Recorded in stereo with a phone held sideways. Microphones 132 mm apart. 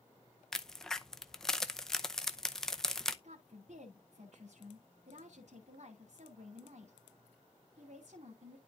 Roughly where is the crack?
Centre.